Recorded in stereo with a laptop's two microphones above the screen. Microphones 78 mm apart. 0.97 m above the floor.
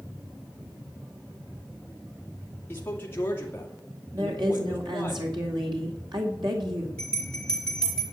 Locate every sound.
2.7 s a man speaking: 25° left (ahead or behind), 1.9 m
4.1 s a woman speaking: 70° right (ahead or behind), 2 m
7.0 s a bell: 10° left (ahead or behind), 4 m